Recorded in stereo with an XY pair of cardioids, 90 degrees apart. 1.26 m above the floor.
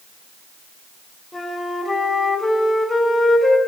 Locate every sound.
1.3 s a flute: 25° left, 2.5 m